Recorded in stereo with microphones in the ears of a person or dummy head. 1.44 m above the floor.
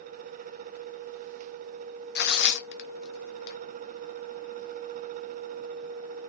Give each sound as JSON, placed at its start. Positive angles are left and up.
{"t": 2.1, "sound": "tearing paper", "side_deg": 60, "distance_m": 0.5}